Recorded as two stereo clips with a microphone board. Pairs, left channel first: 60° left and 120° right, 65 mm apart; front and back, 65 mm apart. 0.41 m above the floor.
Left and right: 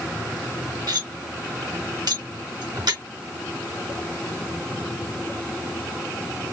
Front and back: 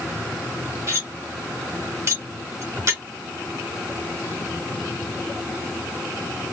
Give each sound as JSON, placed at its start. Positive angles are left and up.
{"t": 0.9, "sound": "cutlery clinking", "azimuth_deg": -130, "distance_m": 2.5}